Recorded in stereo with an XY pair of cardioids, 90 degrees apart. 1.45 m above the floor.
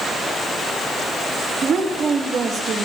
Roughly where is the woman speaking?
Ahead right.